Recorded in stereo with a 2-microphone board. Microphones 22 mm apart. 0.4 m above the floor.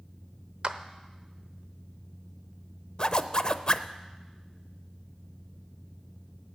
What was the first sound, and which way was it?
A clap, 45° right (ahead or behind).